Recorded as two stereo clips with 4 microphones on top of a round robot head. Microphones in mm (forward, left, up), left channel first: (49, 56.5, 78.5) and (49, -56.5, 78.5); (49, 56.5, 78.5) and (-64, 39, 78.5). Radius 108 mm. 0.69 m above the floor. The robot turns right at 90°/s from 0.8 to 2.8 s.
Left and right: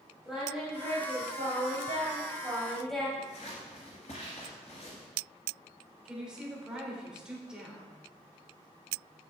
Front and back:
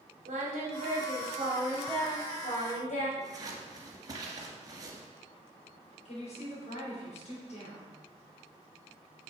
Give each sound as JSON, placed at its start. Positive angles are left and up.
{"t": 0.2, "sound": "singing", "azimuth_deg": -175, "distance_m": 2.5}
{"t": 3.2, "sound": "scissors", "azimuth_deg": 135, "distance_m": 2.0}
{"t": 6.0, "sound": "a woman speaking", "azimuth_deg": -10, "distance_m": 3.0}